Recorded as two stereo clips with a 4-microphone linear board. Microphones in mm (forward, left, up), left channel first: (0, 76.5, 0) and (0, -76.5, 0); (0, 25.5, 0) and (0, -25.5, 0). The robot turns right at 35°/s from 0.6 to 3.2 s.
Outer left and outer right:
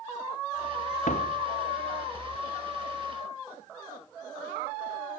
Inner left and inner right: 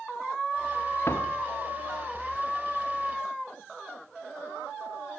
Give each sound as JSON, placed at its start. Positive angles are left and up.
{"t": 1.1, "sound": "a door slam", "side_deg": 55}